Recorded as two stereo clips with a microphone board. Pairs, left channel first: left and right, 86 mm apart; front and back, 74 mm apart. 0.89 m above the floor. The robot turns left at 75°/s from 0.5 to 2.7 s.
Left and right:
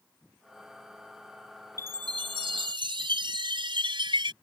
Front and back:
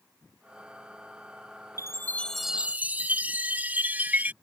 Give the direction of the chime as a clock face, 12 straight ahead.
1 o'clock.